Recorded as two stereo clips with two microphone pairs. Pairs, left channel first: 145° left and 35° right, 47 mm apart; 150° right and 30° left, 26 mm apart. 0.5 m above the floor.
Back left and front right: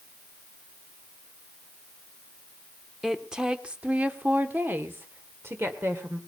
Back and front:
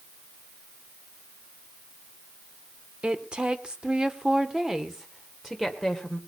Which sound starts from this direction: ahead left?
A woman speaking, at 3.0 s.